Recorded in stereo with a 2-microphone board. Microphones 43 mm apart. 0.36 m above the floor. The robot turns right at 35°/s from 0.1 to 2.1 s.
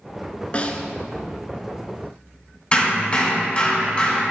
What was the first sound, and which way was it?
A snare drum, 30° left (ahead or behind).